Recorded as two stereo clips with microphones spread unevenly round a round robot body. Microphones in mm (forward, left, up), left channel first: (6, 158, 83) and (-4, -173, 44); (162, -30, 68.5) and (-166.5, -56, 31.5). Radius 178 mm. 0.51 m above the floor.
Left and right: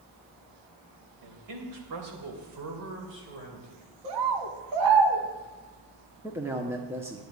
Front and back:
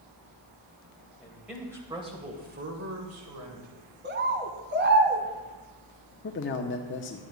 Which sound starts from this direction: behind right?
A bird, at 4.0 s.